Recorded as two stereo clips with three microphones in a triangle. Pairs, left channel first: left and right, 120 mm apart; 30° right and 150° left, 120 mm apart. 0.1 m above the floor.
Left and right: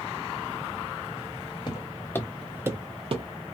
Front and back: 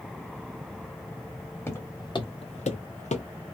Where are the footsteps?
40° left, 0.9 m; by 3.3 s 55° right, 0.8 m.